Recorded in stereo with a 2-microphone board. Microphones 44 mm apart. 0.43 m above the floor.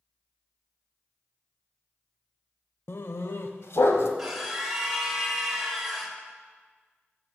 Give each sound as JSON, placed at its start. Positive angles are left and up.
{"t": 2.9, "sound": "a dog barking", "side_deg": 65, "distance_m": 0.6}
{"t": 4.2, "sound": "a scream", "side_deg": -5, "distance_m": 2.0}